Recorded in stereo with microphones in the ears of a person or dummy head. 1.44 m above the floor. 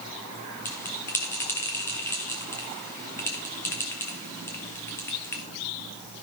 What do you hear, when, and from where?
0.7 s a bell: 15° left (ahead or behind), 1.4 m